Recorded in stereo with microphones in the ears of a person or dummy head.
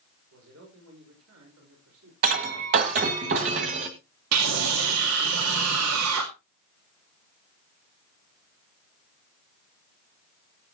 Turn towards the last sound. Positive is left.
turn(degrees=-85)